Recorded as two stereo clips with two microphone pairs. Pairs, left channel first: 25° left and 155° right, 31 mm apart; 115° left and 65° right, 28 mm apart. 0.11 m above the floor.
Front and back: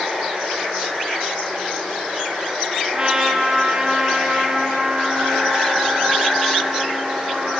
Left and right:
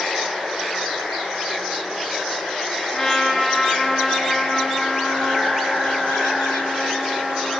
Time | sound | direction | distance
0.0 | running water | 155° left | 2 m
2.9 | a trumpet | 160° left | 0.6 m